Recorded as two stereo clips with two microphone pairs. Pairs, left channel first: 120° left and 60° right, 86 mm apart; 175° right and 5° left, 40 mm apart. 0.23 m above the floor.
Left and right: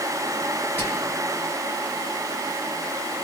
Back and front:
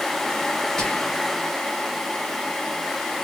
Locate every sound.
0.8 s whispering: 140° left, 1.0 m